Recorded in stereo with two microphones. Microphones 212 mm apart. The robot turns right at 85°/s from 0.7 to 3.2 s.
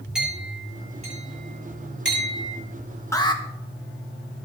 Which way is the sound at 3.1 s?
15° left (ahead or behind).